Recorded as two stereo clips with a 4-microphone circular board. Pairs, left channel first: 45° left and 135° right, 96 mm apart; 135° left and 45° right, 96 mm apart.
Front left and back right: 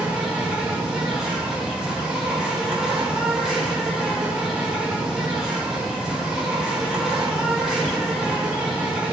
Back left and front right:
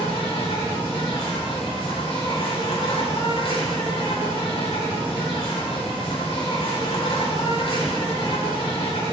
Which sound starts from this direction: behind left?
An insect, at 0.0 s.